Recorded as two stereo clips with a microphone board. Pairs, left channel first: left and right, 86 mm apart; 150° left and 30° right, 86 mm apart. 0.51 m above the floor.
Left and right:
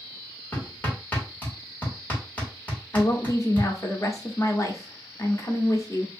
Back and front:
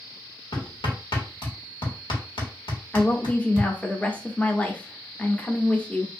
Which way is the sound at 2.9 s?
85° left.